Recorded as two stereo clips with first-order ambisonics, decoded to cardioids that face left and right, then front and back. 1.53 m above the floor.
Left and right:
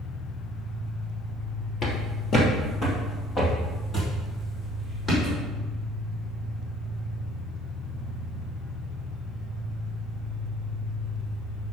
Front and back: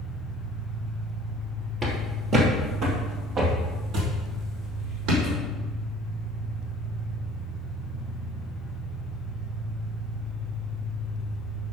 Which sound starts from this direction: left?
An engine running, at 0.0 s.